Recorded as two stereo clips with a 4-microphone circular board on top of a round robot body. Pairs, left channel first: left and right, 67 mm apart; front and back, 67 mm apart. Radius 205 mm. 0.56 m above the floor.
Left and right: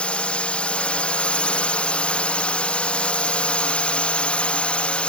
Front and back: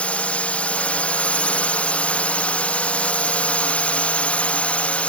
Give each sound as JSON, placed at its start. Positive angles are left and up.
{"t": 0.0, "sound": "a drone", "azimuth_deg": 40}